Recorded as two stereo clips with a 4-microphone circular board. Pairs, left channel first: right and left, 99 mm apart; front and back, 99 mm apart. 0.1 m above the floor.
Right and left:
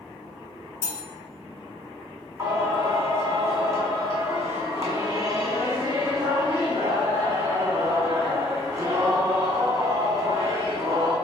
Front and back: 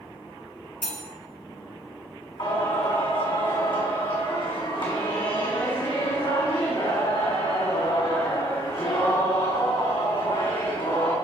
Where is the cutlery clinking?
80° right, 0.9 m.